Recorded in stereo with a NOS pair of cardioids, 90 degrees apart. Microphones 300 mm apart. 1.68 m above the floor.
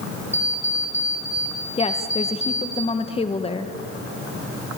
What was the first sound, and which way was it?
An alarm clock, 10° left.